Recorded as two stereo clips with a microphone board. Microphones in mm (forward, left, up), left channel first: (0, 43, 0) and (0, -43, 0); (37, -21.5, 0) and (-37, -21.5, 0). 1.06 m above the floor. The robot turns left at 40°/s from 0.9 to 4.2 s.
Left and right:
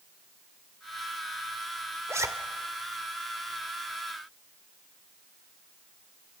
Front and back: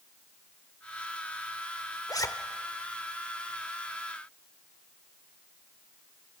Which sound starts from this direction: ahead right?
A zipper, at 2.1 s.